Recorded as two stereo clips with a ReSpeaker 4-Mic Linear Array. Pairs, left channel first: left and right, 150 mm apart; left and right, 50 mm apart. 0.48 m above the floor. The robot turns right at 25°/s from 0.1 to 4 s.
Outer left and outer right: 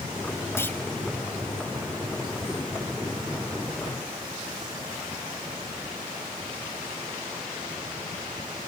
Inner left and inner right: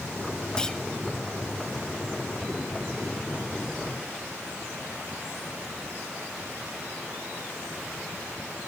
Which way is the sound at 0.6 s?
15° left (ahead or behind).